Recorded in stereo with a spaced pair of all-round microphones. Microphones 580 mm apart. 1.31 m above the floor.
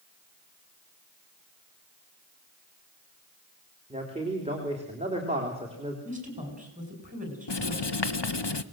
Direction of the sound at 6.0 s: 15° right (ahead or behind).